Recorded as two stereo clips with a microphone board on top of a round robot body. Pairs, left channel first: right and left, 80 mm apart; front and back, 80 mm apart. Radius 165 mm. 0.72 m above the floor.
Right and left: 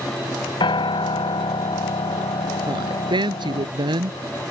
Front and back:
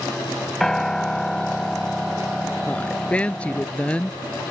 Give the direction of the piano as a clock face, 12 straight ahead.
3 o'clock.